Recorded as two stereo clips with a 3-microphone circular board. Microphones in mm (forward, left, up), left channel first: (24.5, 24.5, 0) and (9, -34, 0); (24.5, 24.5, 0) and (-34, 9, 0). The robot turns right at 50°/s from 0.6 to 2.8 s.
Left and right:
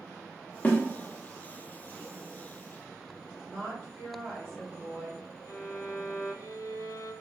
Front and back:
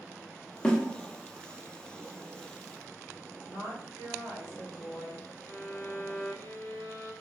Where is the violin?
65° left, 0.6 m.